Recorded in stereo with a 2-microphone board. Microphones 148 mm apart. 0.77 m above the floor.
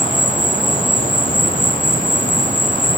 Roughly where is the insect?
Left.